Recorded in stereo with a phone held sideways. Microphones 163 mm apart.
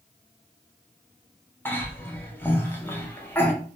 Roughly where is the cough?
Centre.